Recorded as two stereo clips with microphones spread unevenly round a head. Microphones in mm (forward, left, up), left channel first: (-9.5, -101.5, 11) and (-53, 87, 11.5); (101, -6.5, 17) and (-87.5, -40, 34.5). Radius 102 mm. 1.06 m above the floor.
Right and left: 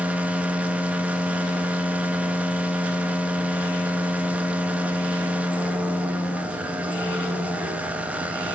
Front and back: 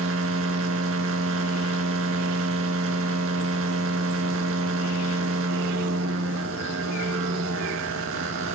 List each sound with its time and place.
0.0 s a machine running: 175° right, 1.9 m